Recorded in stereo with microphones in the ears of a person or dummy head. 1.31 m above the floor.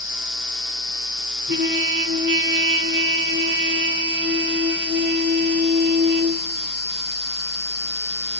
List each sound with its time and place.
1.5 s a trumpet: 65° right (ahead or behind), 9.5 m